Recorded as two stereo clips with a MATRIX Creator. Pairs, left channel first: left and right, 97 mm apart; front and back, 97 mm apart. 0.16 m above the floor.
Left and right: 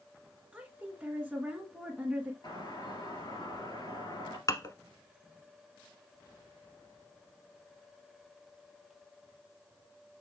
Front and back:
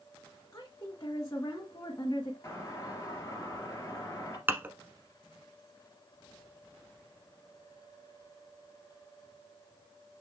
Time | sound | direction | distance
0.5 | a woman speaking | 15° right | 1.7 m
2.4 | a doorbell | 55° left | 3.5 m
4.5 | dishes clattering | 120° left | 1.0 m